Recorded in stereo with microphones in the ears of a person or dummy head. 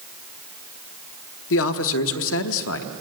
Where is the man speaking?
75° left (ahead or behind), 1.0 m.